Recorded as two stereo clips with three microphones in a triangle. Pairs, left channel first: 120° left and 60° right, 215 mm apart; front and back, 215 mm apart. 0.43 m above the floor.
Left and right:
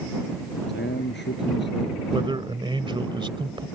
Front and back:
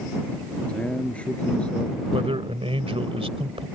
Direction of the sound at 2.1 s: 120° right.